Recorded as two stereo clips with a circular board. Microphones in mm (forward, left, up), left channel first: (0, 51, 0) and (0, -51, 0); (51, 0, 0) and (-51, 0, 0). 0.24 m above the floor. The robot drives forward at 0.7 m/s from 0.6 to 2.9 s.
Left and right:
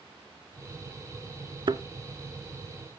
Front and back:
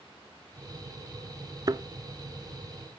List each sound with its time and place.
1.7 s a thud: 130° right, 0.7 m; by 1.8 s 135° right, 0.7 m